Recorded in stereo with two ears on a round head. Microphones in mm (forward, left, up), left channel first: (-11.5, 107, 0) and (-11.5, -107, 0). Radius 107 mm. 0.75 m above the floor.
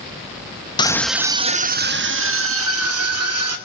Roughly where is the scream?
Centre.